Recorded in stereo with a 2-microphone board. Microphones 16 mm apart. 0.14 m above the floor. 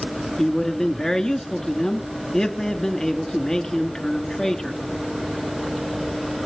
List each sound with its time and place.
0.4 s a man speaking: 45° left (ahead or behind), 1.6 m